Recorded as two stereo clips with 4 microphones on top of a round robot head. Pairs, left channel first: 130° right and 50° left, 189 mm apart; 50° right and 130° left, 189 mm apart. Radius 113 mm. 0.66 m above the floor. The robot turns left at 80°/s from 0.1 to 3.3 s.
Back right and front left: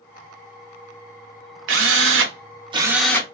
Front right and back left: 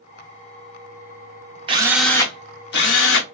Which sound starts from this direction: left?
A drill, at 1.7 s.